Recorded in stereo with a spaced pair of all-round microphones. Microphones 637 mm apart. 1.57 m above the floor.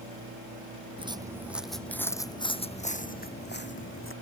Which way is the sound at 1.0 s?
10° right (ahead or behind).